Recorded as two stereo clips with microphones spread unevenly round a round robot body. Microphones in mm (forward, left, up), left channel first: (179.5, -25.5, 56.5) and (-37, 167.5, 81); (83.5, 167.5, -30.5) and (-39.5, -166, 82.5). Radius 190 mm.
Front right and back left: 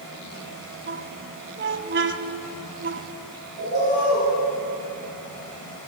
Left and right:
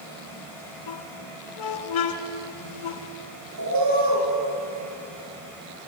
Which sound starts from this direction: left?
A squeak, at 0.9 s.